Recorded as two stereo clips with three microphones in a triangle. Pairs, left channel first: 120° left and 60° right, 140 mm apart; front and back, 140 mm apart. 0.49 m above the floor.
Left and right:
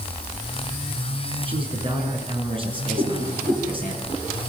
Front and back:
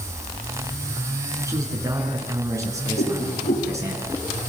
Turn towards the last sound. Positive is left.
turn(degrees=-5)